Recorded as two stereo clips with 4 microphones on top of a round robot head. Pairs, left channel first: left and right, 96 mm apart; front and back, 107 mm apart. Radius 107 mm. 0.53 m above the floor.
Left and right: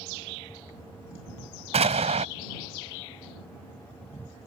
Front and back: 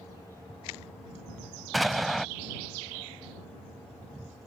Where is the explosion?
90° right.